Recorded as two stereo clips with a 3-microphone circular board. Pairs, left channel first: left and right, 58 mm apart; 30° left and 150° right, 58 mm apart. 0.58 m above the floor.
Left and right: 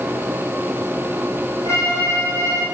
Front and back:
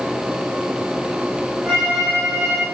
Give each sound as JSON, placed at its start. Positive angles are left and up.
{"t": 1.6, "sound": "a violin", "azimuth_deg": 115, "distance_m": 6.5}